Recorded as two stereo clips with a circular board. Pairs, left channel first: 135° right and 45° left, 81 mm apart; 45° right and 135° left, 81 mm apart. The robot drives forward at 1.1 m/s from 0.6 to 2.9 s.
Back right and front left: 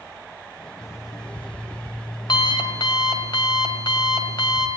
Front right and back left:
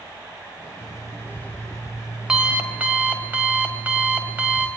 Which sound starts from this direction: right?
An alarm clock, at 0.8 s.